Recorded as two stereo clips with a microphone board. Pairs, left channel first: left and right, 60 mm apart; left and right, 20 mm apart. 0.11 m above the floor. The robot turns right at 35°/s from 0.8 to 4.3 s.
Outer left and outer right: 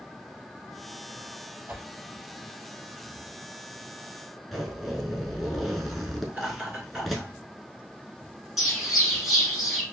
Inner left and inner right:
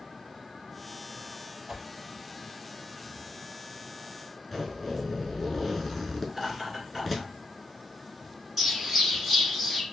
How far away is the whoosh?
About 0.8 m.